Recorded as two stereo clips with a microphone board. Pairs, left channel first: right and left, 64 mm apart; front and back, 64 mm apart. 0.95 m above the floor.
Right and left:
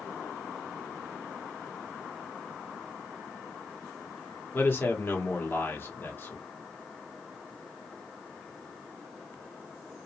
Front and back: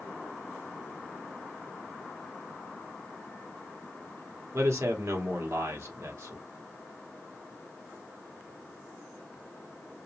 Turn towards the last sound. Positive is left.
turn(degrees=-140)